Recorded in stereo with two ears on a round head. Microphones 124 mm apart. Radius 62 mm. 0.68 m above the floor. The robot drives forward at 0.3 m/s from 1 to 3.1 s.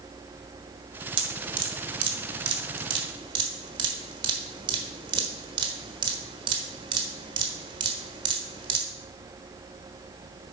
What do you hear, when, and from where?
1.2 s dripping: 35° right (ahead or behind), 1.3 m